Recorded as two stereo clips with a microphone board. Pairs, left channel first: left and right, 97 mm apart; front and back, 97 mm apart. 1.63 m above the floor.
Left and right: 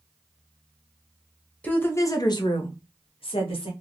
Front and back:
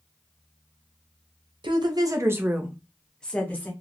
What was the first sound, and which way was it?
A woman speaking, 165° left.